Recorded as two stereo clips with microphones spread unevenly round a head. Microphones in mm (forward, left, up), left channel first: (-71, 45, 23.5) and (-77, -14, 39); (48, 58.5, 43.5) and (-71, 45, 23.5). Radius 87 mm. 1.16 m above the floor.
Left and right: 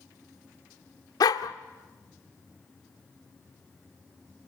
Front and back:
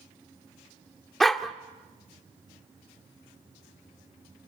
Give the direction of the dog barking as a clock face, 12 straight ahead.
9 o'clock.